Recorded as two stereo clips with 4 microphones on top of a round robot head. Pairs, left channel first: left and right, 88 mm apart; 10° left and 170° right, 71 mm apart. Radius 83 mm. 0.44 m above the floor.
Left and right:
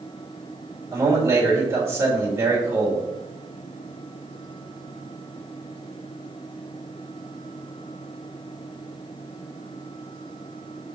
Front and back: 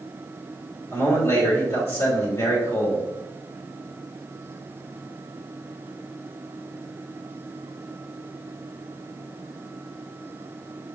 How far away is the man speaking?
About 2.0 m.